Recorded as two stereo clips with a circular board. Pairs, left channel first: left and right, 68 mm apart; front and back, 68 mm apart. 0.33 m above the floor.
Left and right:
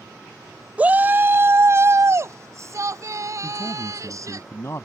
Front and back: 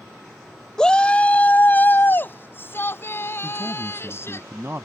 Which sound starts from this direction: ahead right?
A shout, at 0.8 s.